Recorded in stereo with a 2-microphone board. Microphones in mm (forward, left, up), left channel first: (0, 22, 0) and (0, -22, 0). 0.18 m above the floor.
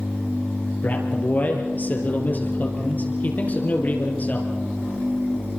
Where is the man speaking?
35° left (ahead or behind), 4.5 m.